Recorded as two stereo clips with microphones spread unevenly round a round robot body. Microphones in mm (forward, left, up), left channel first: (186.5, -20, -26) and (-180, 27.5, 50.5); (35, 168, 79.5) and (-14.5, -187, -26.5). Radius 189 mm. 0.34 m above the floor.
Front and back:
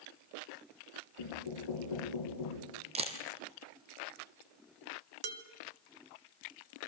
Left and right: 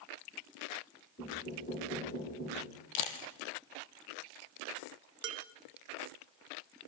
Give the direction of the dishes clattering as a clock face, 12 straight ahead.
5 o'clock.